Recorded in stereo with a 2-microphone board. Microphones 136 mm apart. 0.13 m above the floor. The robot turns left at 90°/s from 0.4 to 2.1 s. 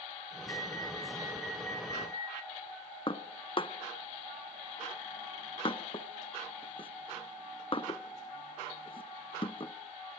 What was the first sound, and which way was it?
An alarm, 80° right.